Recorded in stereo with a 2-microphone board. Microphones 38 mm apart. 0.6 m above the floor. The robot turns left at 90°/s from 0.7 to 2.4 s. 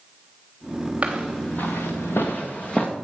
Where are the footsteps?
30° right (ahead or behind), 3 m; by 2.9 s 20° left (ahead or behind), 2.5 m.